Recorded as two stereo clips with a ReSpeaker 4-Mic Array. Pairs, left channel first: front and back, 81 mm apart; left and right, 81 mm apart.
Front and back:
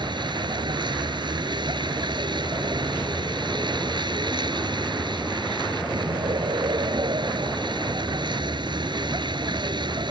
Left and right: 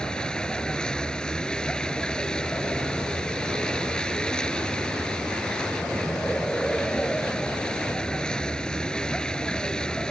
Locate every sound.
0.0 s a vehicle: 170° left